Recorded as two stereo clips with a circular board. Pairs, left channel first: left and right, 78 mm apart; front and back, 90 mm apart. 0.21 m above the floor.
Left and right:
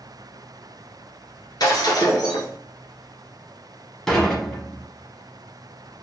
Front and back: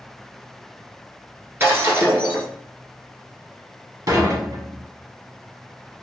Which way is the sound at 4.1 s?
175° left.